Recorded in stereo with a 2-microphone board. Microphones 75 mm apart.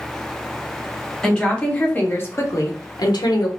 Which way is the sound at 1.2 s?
10° left (ahead or behind).